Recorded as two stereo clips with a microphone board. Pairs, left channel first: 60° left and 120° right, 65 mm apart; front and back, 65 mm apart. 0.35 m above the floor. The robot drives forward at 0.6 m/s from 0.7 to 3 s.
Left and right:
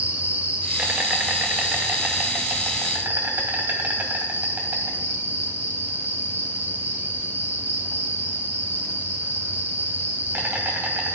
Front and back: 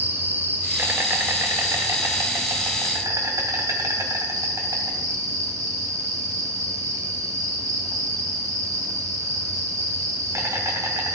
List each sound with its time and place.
0.0 s an insect: 165° right, 2.0 m; by 11.2 s 175° right, 3 m